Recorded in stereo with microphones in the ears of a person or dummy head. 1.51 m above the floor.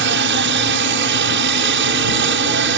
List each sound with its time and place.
0.0 s a helicopter: 50° right (ahead or behind)